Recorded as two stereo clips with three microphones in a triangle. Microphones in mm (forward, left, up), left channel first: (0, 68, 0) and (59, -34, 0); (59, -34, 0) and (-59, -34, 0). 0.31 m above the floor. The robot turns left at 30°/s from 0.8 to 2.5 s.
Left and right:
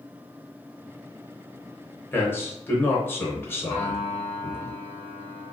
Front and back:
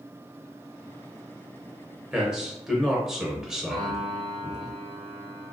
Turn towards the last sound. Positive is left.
turn(degrees=-95)